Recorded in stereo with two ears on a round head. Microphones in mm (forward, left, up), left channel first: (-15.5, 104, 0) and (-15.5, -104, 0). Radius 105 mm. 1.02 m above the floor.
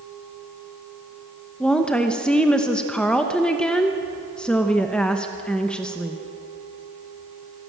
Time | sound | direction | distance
1.6 | a woman speaking | 5° left (ahead or behind) | 1.0 m